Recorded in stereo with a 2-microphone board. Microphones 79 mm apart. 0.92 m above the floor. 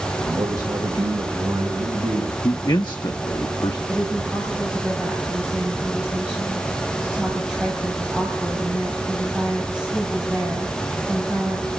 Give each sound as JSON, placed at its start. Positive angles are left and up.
{"t": 0.3, "sound": "a man speaking", "side_deg": -60, "distance_m": 3.0}
{"t": 2.4, "sound": "a man speaking", "side_deg": 70, "distance_m": 0.9}
{"t": 3.9, "sound": "a woman speaking", "side_deg": -10, "distance_m": 5.0}